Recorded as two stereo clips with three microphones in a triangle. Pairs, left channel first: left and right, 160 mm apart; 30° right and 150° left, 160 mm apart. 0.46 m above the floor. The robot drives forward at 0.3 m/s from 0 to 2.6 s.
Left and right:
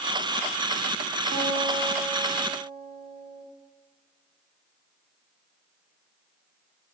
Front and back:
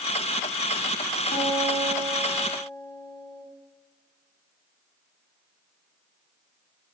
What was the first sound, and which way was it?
A guitar, 80° right.